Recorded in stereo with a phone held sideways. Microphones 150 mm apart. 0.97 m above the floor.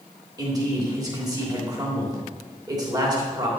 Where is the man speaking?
25° right (ahead or behind), 3 m.